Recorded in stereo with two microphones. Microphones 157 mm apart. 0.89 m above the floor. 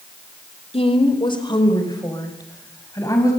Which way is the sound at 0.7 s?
40° left (ahead or behind).